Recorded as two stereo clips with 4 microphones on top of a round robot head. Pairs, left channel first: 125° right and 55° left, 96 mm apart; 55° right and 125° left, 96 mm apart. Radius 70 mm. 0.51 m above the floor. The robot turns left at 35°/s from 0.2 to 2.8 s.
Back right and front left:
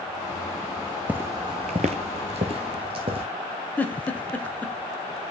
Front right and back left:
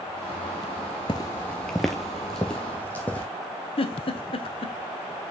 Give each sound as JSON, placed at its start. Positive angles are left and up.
{"t": 1.1, "sound": "footsteps", "azimuth_deg": -20, "distance_m": 0.6}
{"t": 3.8, "sound": "a giggle", "azimuth_deg": -50, "distance_m": 0.9}